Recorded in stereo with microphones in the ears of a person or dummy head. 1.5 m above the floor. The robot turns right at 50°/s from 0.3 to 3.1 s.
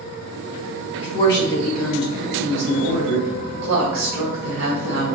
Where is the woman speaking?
135° left, 1.2 m; by 5.1 s 115° right, 1.2 m.